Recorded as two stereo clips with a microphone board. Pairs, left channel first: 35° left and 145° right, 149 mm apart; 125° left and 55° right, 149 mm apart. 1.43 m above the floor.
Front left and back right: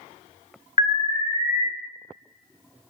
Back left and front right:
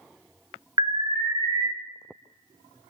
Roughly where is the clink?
I don't hear a clink.